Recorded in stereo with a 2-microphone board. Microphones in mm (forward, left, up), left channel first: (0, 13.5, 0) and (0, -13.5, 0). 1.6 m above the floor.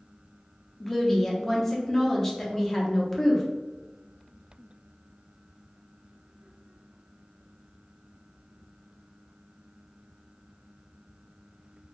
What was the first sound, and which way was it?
A woman speaking, 15° left (ahead or behind).